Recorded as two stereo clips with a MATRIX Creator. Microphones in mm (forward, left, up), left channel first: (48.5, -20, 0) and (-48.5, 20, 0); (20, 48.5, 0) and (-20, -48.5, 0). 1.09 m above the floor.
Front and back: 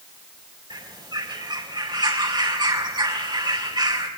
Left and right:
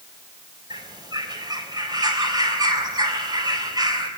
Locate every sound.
0.7 s a bird: 160° right, 4 m